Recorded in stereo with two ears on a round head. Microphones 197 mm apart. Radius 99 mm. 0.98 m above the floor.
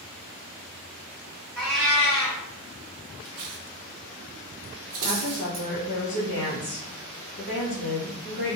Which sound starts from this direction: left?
A woman speaking, at 5.0 s.